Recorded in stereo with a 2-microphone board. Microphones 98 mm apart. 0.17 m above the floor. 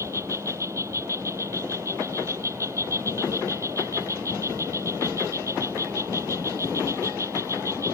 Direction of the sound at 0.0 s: 30° right (ahead or behind).